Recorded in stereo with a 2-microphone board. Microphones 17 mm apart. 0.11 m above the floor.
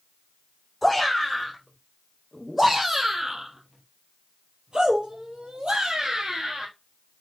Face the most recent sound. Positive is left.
turn(degrees=-60)  # may be behind; listen again after turning